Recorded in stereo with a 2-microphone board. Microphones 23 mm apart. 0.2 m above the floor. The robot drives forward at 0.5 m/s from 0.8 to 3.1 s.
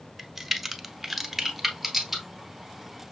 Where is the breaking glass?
No breaking glass in this recording.